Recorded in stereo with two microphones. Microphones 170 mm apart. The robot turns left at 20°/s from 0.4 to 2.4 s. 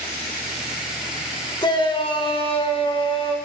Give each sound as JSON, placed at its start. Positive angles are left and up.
{"t": 1.6, "sound": "a shout", "side_deg": 25, "distance_m": 1.2}